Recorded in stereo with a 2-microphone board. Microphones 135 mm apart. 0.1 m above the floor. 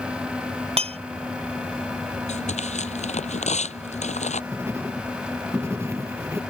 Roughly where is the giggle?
No giggle in this recording.